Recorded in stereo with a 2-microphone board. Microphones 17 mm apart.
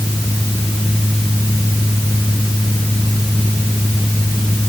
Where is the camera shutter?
I don't hear a camera shutter.